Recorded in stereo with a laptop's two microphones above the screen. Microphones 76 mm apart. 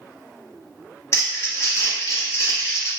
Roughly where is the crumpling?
Left.